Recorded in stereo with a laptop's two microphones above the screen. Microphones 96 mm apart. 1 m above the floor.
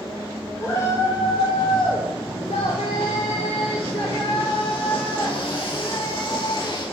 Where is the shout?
25° left (ahead or behind), 4 m; by 6.8 s 55° left (ahead or behind), 8 m.